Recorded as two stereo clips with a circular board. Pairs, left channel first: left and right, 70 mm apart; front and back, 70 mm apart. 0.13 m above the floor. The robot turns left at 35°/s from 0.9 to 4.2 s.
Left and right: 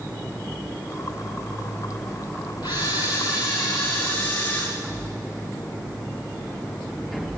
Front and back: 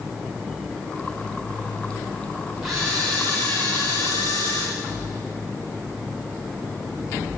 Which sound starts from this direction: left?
A camera shutter, at 2.6 s.